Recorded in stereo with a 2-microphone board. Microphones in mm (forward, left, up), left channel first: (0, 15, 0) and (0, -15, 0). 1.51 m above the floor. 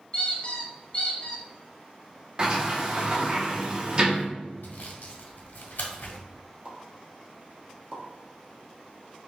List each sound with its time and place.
0.1 s a squeak: 30° left (ahead or behind), 1.0 m
2.4 s a sliding door: 30° right (ahead or behind), 0.8 m
4.6 s sawing: 75° left (ahead or behind), 1.1 m
6.7 s a pop: 30° right (ahead or behind), 1.2 m